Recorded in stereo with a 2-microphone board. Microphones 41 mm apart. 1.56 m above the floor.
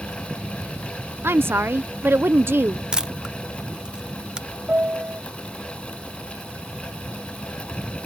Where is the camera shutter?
20° right (ahead or behind).